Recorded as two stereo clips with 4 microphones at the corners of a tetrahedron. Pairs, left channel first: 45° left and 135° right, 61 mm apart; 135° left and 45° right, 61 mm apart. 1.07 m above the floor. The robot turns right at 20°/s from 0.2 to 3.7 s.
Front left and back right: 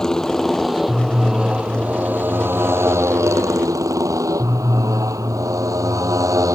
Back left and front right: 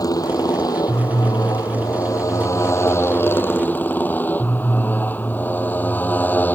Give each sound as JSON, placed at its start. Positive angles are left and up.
{"t": 0.0, "sound": "a motorcycle", "azimuth_deg": 125}